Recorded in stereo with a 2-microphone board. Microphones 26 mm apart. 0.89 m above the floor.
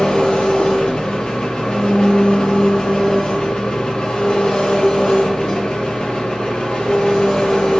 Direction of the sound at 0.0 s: 40° left (ahead or behind).